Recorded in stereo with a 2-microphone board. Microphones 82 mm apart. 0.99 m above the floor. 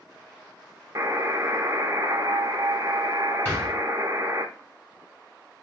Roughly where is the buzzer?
Right.